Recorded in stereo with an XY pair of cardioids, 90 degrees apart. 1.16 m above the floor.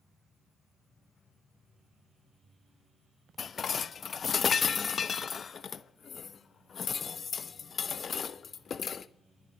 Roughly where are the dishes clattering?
Ahead left.